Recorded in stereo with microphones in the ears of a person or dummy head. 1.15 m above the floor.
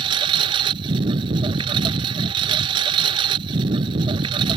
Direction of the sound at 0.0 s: 30° right (ahead or behind).